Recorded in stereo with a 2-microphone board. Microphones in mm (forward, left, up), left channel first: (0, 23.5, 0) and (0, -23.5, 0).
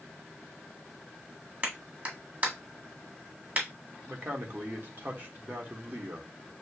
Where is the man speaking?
45° right (ahead or behind), 1.3 m.